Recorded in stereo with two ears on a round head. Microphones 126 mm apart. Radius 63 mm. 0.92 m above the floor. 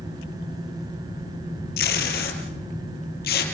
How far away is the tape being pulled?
About 4.5 m.